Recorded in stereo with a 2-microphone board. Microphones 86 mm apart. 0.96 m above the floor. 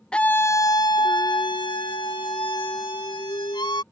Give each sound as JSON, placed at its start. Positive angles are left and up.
{"t": 0.1, "sound": "a scream", "side_deg": 10}